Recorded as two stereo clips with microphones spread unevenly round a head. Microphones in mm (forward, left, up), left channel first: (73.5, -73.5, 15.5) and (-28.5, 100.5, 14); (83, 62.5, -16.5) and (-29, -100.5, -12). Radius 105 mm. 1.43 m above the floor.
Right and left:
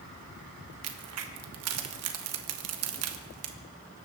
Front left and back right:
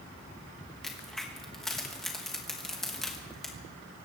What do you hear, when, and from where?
0.8 s a crack: 145° left, 1.4 m